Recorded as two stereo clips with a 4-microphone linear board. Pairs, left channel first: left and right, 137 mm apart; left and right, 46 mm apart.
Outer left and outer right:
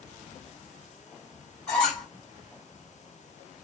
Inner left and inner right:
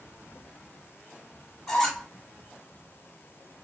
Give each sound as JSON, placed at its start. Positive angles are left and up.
{"t": 1.7, "sound": "a squeak", "side_deg": 5, "distance_m": 1.3}